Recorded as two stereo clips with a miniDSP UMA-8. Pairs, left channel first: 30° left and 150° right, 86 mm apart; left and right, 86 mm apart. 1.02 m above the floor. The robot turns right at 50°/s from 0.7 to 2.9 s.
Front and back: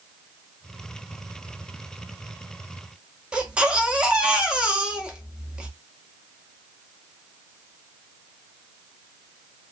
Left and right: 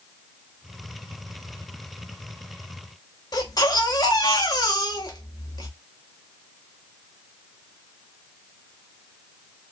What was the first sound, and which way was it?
A baby crying, 130° left.